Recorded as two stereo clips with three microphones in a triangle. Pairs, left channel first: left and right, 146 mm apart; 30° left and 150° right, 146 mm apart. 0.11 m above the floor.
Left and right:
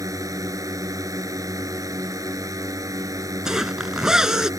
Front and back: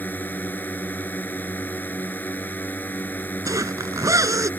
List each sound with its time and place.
0.0 s a drone: 40° right
3.5 s a zipper: 170° right